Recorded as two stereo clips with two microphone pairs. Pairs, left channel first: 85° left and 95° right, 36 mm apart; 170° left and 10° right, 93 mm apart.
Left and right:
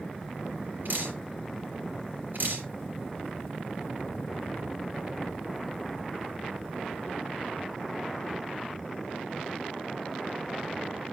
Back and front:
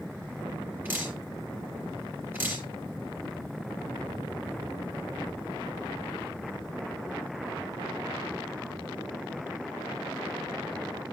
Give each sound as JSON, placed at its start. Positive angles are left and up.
{"t": 0.8, "sound": "dripping", "azimuth_deg": -80, "distance_m": 4.0}